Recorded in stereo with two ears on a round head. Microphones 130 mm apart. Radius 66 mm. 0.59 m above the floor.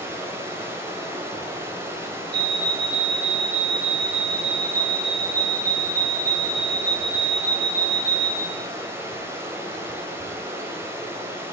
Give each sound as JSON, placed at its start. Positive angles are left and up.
{"t": 0.0, "sound": "running water", "side_deg": -15, "distance_m": 3.0}
{"t": 2.3, "sound": "a fire alarm", "side_deg": -70, "distance_m": 7.0}